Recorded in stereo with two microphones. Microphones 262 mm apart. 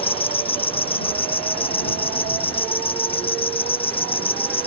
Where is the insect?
20° left (ahead or behind).